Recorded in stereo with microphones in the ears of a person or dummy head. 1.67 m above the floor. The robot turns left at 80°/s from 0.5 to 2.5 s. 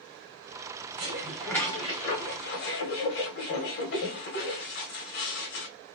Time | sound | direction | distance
1.0 | dishes clattering | 145° right | 1.2 m